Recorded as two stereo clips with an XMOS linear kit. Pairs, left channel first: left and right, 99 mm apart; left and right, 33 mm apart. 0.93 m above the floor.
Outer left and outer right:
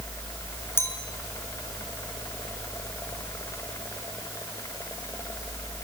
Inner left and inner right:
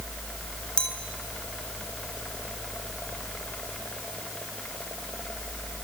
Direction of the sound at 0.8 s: 25° left (ahead or behind).